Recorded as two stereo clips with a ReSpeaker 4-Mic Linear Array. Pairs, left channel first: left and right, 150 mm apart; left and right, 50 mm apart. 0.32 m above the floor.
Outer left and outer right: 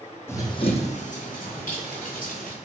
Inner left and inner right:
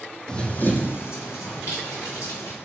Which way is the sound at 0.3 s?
15° left (ahead or behind).